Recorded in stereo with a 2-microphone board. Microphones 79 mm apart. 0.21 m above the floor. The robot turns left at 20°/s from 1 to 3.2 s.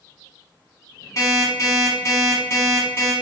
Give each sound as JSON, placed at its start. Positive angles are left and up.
{"t": 1.2, "sound": "an alarm clock", "azimuth_deg": 85, "distance_m": 0.9}